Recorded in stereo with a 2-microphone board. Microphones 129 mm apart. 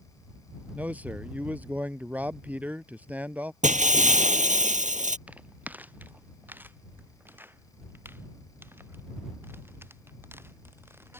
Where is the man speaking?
10° right (ahead or behind).